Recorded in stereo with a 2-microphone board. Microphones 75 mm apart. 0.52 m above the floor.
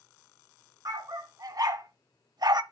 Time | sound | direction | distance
0.8 | a dog barking | 55° right (ahead or behind) | 1.7 m